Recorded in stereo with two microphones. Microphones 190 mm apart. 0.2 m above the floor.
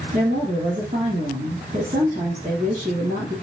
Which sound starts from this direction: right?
A woman speaking, at 0.1 s.